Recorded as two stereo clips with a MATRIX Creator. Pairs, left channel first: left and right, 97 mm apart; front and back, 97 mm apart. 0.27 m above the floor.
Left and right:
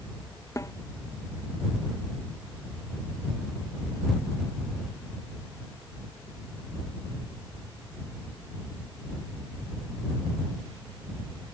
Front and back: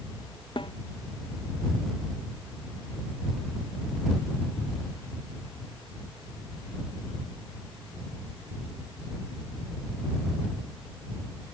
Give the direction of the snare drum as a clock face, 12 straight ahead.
11 o'clock.